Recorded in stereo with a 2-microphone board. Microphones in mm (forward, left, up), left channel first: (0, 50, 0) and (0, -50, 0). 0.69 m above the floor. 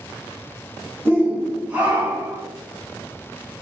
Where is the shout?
20° right (ahead or behind), 0.9 m; by 2.4 s 15° right (ahead or behind), 1.1 m.